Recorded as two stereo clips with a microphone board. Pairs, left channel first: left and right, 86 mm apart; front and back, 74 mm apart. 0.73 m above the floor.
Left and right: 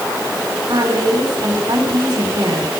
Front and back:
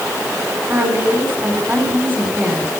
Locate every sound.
0.7 s a woman speaking: 120° right, 5 m